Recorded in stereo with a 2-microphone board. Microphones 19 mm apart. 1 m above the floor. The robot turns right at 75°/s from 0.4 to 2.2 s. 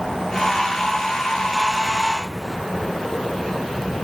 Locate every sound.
Only background noise.